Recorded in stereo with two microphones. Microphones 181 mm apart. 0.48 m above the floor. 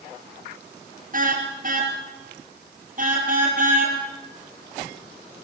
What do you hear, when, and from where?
1.1 s a car horn: 50° right (ahead or behind), 4 m